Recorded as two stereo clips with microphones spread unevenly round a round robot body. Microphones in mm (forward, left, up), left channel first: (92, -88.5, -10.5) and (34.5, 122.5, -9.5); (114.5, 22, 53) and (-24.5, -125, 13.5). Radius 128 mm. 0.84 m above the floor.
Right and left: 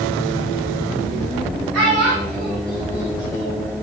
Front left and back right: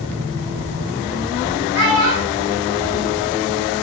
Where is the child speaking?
110° left, 5 m; by 3.7 s 125° left, 5 m.